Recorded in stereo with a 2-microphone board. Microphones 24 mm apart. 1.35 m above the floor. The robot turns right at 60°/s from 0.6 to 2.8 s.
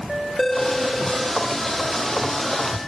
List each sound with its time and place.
0.4 s a phone ringing: 175° left, 2.5 m; by 1.4 s 140° right, 2.5 m